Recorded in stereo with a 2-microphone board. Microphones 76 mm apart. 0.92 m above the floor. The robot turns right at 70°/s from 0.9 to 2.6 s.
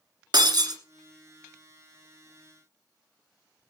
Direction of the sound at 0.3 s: 65° right (ahead or behind).